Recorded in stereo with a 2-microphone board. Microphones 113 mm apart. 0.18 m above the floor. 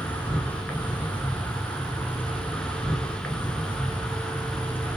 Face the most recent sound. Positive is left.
turn(degrees=15)  # may be behind; listen again after turning